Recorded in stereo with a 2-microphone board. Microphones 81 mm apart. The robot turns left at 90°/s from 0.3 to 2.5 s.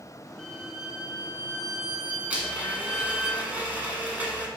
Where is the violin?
20° left, 1.3 m; by 3.3 s 170° right, 1.3 m.